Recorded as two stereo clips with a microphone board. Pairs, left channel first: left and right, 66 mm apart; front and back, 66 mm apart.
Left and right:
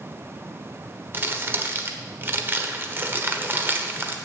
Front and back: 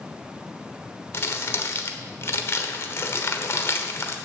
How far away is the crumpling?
About 1.1 m.